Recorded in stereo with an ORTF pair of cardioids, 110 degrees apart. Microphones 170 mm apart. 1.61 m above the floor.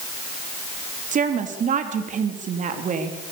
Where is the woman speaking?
50° right, 3.5 m.